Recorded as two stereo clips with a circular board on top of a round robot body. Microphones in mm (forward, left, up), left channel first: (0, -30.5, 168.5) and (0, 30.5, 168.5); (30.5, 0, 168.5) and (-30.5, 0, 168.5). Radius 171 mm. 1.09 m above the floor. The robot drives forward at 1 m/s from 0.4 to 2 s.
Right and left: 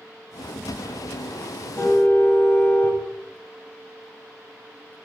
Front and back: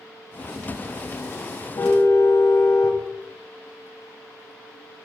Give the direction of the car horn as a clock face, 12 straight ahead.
1 o'clock.